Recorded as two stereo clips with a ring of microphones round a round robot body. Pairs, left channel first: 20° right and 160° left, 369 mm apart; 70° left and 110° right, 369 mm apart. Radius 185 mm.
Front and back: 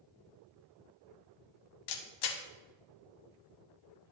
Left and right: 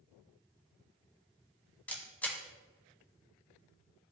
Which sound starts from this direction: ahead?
A camera shutter, at 1.9 s.